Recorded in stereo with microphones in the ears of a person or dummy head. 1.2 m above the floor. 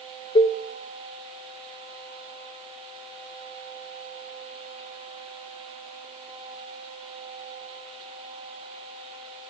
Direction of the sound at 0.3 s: 25° left (ahead or behind).